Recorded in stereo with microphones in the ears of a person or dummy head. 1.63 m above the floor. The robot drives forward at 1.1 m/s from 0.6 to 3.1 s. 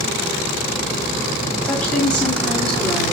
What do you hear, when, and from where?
1.6 s a woman speaking: 10° left (ahead or behind), 3.5 m; by 3.1 s 5° left (ahead or behind), 5 m